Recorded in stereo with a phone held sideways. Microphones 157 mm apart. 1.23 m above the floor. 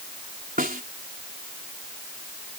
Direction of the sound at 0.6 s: 70° right (ahead or behind).